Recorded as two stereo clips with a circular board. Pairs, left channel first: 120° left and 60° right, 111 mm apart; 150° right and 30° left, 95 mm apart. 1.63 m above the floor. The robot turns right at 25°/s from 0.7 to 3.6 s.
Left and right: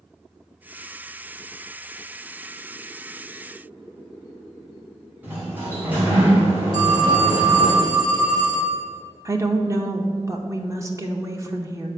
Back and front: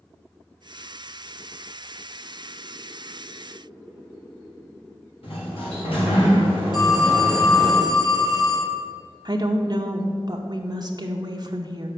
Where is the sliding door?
130° right, 2.5 m.